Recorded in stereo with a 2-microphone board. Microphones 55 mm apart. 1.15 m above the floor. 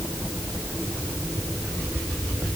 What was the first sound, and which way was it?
Only background noise.